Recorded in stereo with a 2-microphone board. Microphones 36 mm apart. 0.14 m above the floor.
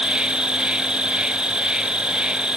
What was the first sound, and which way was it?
An insect, 25° right (ahead or behind).